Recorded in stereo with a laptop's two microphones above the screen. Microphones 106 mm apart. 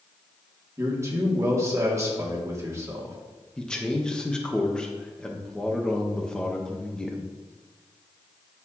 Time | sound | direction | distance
0.8 | a man speaking | 25° right (ahead or behind) | 2 m
3.6 | a man speaking | 5° left (ahead or behind) | 0.9 m